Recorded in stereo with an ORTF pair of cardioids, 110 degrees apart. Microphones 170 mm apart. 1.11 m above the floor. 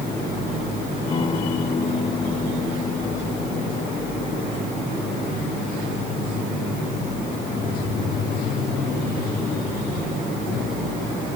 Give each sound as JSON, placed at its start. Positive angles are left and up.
{"t": 1.1, "sound": "a guitar", "azimuth_deg": 30}